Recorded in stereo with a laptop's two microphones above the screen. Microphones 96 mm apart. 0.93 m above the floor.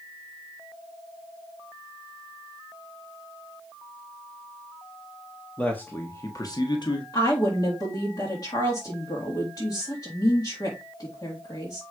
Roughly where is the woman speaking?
Left.